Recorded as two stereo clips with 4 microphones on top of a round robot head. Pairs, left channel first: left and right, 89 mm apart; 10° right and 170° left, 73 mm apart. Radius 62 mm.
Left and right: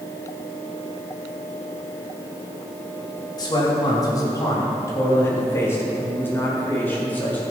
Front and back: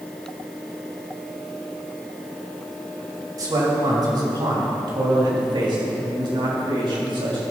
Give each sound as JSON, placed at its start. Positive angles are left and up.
{"t": 3.4, "sound": "a man speaking", "azimuth_deg": 135, "distance_m": 3.5}